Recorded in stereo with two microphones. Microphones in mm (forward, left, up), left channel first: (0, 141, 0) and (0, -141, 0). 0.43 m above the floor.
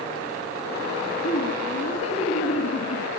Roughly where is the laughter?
Left.